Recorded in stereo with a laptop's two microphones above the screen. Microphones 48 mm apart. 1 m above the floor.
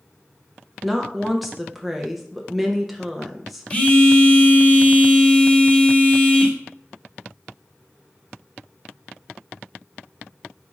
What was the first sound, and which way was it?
A woman speaking, centre (ahead or behind).